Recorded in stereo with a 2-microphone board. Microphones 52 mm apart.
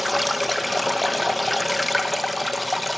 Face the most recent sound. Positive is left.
turn(degrees=0)  # may be behind; listen again after turning